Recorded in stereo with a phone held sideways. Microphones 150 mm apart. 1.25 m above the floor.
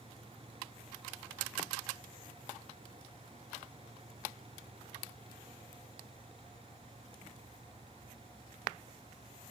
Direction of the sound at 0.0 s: 40° right (ahead or behind).